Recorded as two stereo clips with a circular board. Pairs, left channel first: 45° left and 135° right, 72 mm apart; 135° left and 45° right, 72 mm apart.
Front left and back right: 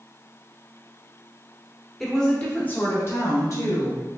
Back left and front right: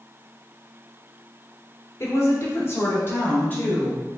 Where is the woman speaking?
130° left, 1.0 m; by 4.0 s 70° left, 1.6 m.